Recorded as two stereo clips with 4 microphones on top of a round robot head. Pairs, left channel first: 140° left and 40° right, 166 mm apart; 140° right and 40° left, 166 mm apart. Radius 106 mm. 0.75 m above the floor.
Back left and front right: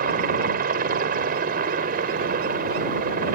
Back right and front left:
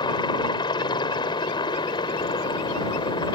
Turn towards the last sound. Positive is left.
turn(degrees=-75)